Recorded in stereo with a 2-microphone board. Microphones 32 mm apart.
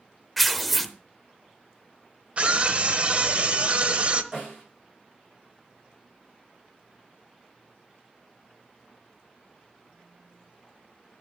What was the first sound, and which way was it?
Tearing paper, centre (ahead or behind).